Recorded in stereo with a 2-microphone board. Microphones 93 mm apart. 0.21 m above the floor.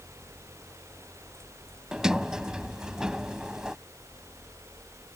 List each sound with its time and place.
1.9 s a sliding door: 5° right (ahead or behind)